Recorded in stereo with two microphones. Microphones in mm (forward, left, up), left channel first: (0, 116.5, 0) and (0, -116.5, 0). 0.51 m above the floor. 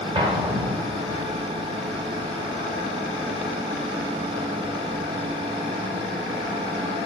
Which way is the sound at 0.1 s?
25° right (ahead or behind).